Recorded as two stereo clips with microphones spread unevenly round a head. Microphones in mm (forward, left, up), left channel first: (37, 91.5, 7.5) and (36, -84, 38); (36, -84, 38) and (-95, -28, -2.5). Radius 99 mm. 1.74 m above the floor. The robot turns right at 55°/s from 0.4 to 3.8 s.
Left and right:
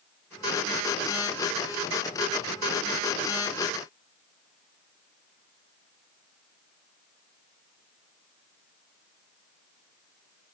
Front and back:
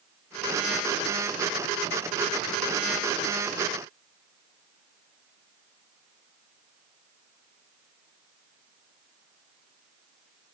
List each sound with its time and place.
Only background noise.